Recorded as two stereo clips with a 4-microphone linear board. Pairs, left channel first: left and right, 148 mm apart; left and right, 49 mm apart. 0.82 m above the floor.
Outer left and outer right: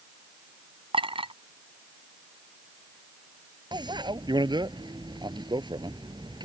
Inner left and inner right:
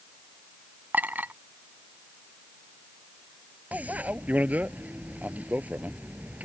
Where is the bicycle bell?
30° right (ahead or behind).